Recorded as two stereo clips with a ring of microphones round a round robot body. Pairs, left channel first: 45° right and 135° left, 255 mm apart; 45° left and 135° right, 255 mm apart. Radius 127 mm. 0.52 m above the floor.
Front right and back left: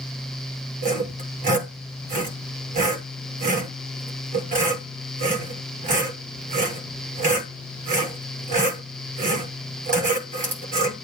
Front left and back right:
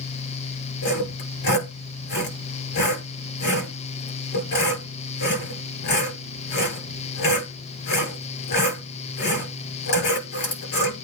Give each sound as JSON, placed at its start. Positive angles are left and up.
{"t": 0.8, "sound": "sawing", "azimuth_deg": 70, "distance_m": 7.5}